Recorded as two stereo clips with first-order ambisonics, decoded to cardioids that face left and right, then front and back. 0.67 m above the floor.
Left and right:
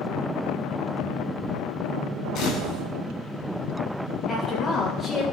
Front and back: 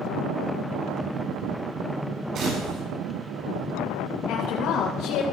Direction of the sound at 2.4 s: 130° left.